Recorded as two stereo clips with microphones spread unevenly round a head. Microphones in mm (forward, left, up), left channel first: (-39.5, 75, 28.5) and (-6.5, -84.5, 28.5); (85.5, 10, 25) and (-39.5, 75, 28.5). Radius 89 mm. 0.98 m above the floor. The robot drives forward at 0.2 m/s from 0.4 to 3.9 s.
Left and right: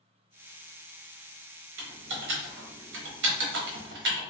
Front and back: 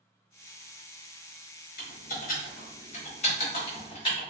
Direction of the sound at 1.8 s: 65° right.